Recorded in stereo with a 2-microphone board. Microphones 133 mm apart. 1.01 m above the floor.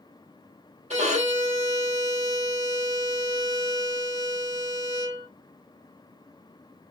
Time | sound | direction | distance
0.9 | a violin | 55° right (ahead or behind) | 1.1 m